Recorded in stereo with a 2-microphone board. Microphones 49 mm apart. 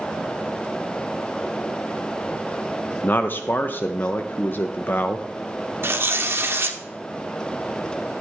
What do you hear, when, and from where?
3.0 s a man speaking: 40° left (ahead or behind), 0.6 m
5.8 s tearing paper: 50° right (ahead or behind), 1.4 m